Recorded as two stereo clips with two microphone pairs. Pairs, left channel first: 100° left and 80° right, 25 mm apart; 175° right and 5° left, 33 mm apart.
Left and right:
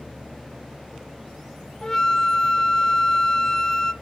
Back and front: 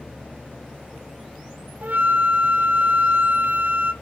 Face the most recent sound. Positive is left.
turn(degrees=30)